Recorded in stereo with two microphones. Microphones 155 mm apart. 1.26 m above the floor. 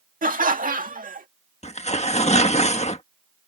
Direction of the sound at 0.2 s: 65° right (ahead or behind).